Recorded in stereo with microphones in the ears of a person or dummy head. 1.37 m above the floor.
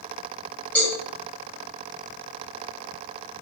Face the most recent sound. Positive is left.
turn(degrees=10)  # may be behind; listen again after turning